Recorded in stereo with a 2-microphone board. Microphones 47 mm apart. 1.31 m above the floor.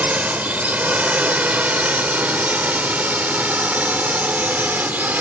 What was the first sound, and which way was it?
A drone, 30° right (ahead or behind).